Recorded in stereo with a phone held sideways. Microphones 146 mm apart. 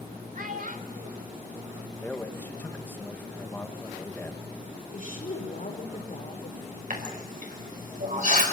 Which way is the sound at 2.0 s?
15° left (ahead or behind).